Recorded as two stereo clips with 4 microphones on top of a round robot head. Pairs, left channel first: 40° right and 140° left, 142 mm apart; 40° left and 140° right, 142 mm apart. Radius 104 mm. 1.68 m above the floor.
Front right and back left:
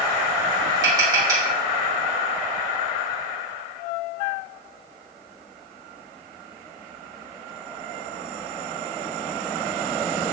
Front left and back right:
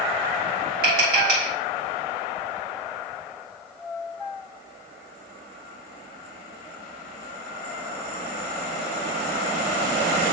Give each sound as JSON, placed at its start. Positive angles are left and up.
{"t": 0.8, "sound": "tapping", "azimuth_deg": -155, "distance_m": 2.5}